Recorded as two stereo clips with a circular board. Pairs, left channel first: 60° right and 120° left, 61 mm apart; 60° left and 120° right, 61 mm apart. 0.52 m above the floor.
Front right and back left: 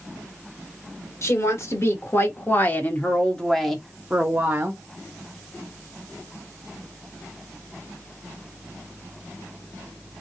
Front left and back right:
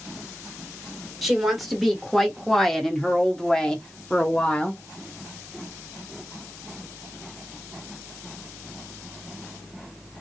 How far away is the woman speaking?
About 1.7 m.